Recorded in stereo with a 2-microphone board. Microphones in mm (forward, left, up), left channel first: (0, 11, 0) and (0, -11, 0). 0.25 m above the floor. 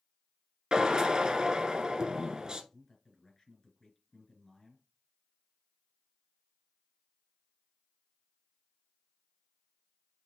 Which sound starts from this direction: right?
A drill, at 0.7 s.